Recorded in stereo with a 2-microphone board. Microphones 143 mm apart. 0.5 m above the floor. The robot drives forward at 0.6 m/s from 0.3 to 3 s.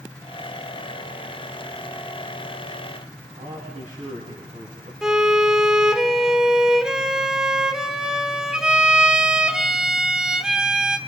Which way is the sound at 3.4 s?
70° right (ahead or behind).